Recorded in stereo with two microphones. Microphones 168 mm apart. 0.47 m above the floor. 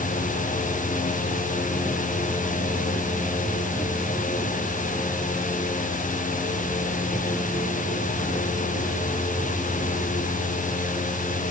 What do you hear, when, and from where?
Only background noise.